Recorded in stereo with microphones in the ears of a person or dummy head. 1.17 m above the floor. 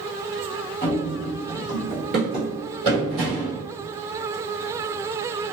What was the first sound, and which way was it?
Running footsteps, 10° left (ahead or behind).